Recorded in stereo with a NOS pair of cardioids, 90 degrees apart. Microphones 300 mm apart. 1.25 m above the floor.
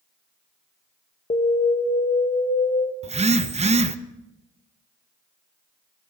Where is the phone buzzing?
20° right, 0.9 m.